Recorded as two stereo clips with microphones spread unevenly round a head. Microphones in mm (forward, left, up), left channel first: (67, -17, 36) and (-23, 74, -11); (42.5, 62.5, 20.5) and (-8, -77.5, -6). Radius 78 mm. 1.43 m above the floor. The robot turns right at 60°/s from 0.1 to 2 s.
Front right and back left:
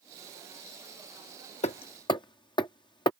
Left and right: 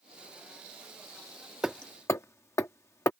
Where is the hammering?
20° right; by 3.1 s straight ahead.